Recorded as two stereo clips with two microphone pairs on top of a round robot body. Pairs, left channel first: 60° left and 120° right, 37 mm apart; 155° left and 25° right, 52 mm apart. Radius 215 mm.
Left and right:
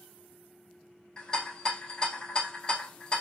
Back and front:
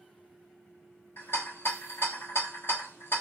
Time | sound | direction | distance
1.2 | a rattle | 120° left | 1.8 m